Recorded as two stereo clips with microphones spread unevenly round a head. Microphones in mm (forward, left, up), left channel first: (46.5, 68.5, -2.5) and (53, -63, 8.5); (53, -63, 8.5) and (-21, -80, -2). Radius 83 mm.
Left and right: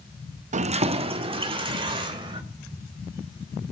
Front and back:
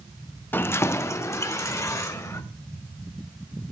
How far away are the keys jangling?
About 0.7 m.